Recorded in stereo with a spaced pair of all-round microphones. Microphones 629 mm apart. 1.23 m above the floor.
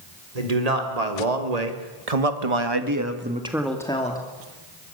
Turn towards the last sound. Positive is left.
turn(degrees=15)  # may be behind; listen again after turning